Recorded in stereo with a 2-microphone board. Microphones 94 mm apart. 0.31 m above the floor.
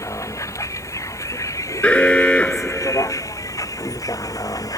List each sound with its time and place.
0.0 s a vehicle: 35° left (ahead or behind); by 4.8 s 40° left (ahead or behind)
1.8 s an alarm: 10° left (ahead or behind)